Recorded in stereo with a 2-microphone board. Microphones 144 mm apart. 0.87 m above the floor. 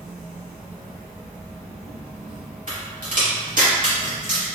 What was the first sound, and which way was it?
An insect, 10° right (ahead or behind).